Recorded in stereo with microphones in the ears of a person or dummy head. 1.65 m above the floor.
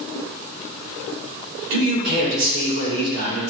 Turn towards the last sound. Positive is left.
turn(degrees=-65)  # may be behind; listen again after turning